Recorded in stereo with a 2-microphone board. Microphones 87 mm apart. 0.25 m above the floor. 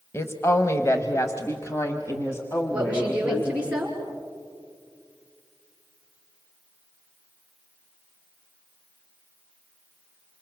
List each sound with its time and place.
0.1 s a woman speaking: 30° left (ahead or behind), 1.2 m; by 3.7 s 25° left (ahead or behind), 2.5 m
2.7 s a woman speaking: 10° right (ahead or behind), 5.5 m